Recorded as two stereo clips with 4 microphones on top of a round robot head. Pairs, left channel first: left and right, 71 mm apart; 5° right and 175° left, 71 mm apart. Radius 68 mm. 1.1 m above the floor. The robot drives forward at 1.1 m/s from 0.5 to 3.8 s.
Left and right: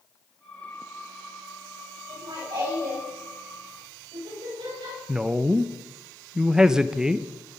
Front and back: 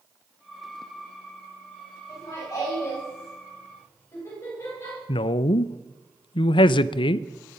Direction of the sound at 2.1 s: 55° right.